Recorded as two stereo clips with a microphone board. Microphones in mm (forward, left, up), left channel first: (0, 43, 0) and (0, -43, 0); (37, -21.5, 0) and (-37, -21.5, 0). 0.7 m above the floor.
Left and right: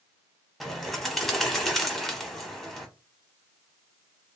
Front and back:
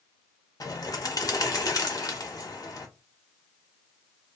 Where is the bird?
Straight ahead, 0.8 m.